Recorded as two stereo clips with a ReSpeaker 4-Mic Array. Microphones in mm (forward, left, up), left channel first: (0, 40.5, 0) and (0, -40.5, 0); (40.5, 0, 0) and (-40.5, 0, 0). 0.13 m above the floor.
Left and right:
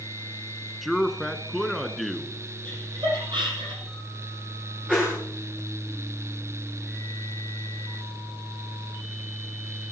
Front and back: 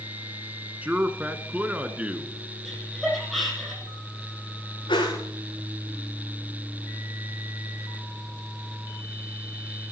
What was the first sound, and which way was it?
A man speaking, straight behind.